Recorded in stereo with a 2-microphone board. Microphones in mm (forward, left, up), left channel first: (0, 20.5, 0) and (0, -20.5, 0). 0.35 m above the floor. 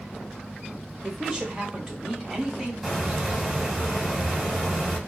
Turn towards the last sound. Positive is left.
turn(degrees=-5)  # may be behind; listen again after turning